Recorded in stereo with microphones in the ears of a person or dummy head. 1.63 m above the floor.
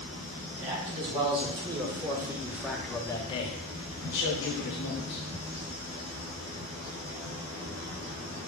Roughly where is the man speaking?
Right.